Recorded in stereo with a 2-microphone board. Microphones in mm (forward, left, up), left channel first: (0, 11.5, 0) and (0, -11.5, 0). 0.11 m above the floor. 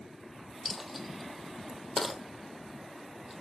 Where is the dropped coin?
Centre (ahead or behind), 1.1 m.